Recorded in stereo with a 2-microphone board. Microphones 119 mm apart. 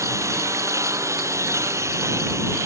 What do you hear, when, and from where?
0.0 s a lawn mower: 25° right (ahead or behind)